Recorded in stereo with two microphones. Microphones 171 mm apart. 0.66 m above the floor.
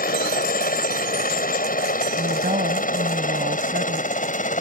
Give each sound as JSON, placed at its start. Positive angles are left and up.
{"t": 0.0, "sound": "a helicopter", "side_deg": 60}
{"t": 2.2, "sound": "a woman speaking", "side_deg": -60}